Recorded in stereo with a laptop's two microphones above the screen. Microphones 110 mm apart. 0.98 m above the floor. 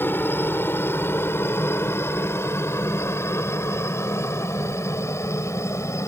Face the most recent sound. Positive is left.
turn(degrees=25)  # may be behind; listen again after turning